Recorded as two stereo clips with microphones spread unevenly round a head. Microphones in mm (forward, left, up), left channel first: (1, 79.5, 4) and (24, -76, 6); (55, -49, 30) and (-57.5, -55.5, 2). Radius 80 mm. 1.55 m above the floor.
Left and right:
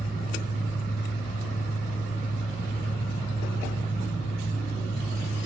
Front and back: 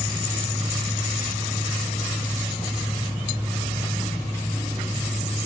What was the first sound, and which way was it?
A fan, 135° left.